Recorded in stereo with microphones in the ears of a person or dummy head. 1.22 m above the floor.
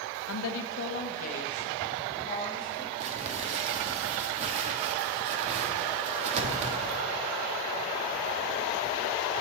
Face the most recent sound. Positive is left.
turn(degrees=-40)  # may be behind; listen again after turning